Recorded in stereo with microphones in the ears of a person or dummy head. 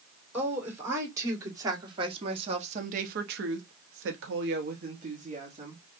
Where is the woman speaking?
15° right (ahead or behind), 2.5 m; by 5.8 s 35° right (ahead or behind), 1.6 m.